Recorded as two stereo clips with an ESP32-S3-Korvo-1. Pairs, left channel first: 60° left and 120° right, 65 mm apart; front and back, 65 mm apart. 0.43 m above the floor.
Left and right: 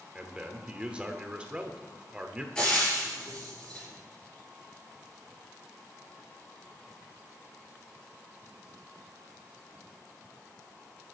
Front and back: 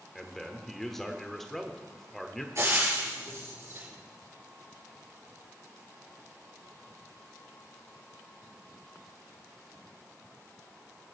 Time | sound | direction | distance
0.1 | a man speaking | 80° right | 1.0 m
2.5 | frying | 135° left | 5 m